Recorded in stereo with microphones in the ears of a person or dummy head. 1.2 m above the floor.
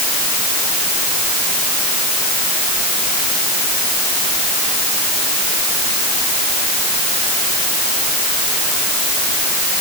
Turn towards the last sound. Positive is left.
No sound to turn to.